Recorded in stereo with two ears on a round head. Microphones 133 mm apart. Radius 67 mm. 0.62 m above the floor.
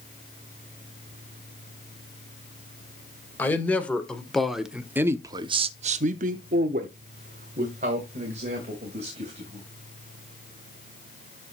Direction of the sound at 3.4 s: 15° left (ahead or behind).